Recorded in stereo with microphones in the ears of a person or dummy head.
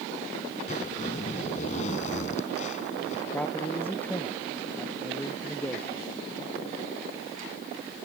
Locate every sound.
0.7 s a zipper: 45° left (ahead or behind)
3.3 s a man speaking: 5° left (ahead or behind)